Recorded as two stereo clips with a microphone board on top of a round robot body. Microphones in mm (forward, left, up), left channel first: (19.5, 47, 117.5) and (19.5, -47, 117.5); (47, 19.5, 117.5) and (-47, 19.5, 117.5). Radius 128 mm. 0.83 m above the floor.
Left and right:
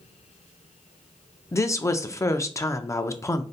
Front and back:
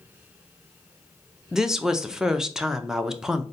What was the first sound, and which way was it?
A woman speaking, 100° left.